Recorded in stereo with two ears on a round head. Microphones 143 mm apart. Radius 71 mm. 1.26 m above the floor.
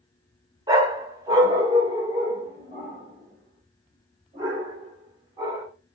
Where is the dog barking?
25° right (ahead or behind), 1.3 m.